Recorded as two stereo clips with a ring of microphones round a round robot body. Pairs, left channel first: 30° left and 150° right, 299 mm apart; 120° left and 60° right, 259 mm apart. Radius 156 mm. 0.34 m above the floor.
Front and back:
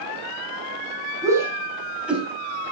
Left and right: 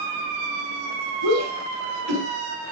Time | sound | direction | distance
1.2 | a shout | 70° right | 6 m